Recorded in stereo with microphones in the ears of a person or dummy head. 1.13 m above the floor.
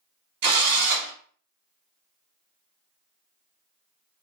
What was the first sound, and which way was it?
A drill, 55° right (ahead or behind).